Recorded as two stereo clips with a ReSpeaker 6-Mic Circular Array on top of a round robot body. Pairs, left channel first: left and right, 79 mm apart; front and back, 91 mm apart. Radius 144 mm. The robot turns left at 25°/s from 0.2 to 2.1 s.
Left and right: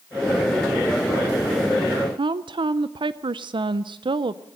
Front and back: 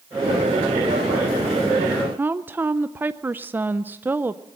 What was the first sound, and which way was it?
A woman speaking, 110° right.